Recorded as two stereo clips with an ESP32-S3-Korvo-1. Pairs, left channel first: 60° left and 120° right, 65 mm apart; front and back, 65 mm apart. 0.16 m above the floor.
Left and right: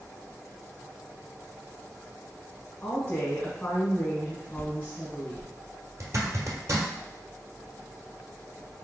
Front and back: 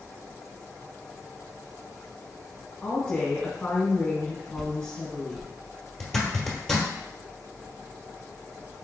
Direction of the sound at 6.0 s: 80° right.